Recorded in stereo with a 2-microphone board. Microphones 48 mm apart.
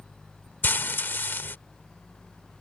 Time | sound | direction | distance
0.6 | frying | 45° left (ahead or behind) | ?